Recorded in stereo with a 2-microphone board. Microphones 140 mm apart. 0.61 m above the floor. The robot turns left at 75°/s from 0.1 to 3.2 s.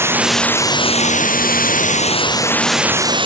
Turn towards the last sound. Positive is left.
turn(degrees=-35)